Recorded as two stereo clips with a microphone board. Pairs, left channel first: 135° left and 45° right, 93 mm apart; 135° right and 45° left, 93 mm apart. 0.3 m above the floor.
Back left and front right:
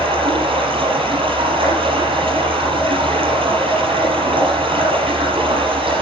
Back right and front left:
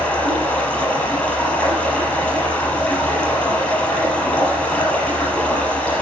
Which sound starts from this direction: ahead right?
Running water, at 0.0 s.